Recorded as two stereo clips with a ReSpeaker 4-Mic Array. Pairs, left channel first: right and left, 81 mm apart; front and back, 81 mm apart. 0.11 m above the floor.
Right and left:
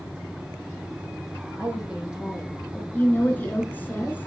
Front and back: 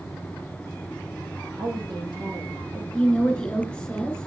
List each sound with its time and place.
1.6 s a woman speaking: 165° left, 5 m
2.9 s a woman speaking: 60° right, 1.6 m